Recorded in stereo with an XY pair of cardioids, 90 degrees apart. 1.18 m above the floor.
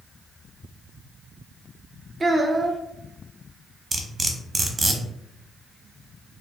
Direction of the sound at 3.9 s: 35° right.